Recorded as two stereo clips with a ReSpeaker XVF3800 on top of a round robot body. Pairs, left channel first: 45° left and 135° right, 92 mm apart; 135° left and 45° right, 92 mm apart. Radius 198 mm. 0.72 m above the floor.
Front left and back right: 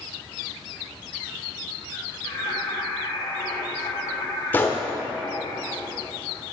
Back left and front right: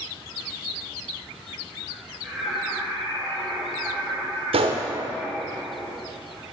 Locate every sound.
2.2 s singing: 40° left, 4.5 m
4.5 s a gunshot: 25° right, 0.8 m